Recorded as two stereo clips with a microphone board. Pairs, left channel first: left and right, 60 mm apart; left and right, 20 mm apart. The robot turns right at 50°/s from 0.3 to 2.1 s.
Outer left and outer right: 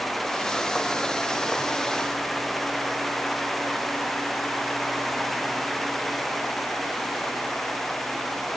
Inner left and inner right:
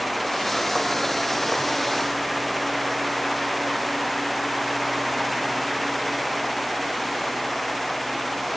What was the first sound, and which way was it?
Only background noise.